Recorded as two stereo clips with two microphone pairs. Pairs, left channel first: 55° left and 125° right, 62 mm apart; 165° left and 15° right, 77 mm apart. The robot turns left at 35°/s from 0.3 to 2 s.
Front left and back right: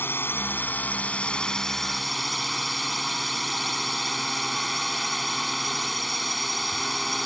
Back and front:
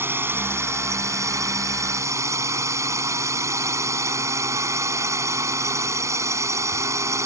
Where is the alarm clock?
I don't hear an alarm clock.